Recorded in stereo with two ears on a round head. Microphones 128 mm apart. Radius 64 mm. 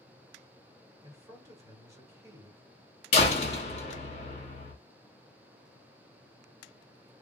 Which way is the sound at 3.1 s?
45° left (ahead or behind).